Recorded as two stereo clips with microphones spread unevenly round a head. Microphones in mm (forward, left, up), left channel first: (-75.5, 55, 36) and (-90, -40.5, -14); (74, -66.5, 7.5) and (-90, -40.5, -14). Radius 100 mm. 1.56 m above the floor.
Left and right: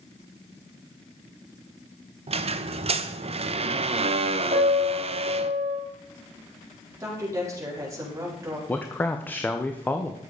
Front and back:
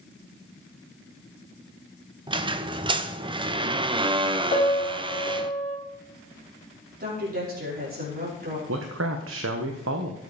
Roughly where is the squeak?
Behind right.